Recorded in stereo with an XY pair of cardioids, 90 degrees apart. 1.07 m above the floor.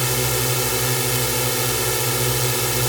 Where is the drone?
Straight ahead.